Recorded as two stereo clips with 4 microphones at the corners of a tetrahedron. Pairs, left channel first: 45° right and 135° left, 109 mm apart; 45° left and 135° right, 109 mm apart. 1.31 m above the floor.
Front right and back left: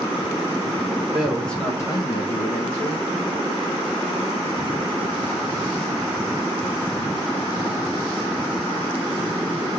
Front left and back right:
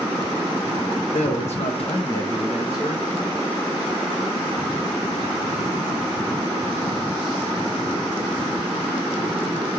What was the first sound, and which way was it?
A man speaking, 50° left.